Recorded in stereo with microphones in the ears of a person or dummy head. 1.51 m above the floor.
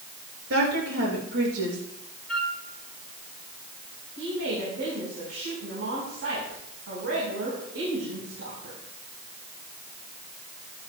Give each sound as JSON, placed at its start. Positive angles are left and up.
{"t": 0.5, "sound": "a woman speaking", "side_deg": -85, "distance_m": 6.0}
{"t": 2.3, "sound": "a flute", "side_deg": 0, "distance_m": 4.5}
{"t": 4.2, "sound": "a woman speaking", "side_deg": -75, "distance_m": 4.5}